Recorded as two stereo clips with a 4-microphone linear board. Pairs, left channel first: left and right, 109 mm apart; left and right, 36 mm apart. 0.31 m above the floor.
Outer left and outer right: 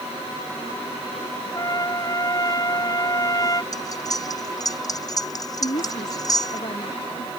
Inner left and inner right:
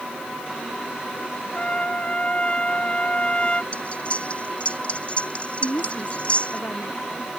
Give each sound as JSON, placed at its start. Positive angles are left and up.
{"t": 1.6, "sound": "a trumpet", "side_deg": 35}
{"t": 3.7, "sound": "cutlery clinking", "side_deg": 35}
{"t": 5.6, "sound": "a woman speaking", "side_deg": 60}